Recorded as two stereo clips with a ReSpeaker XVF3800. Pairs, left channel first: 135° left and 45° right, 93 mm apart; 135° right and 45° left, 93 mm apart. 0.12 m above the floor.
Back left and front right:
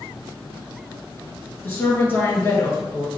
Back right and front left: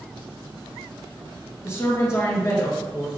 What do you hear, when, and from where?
1.6 s a woman speaking: 170° right, 1.7 m